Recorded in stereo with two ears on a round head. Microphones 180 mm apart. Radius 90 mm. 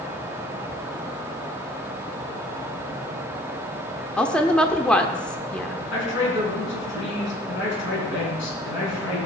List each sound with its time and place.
4.2 s a woman speaking: 5° left (ahead or behind), 0.8 m
5.9 s a man speaking: 65° left (ahead or behind), 5 m